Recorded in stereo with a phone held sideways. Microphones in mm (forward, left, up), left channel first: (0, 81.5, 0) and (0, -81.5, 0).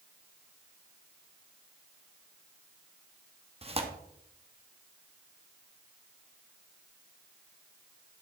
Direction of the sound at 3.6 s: 35° right (ahead or behind).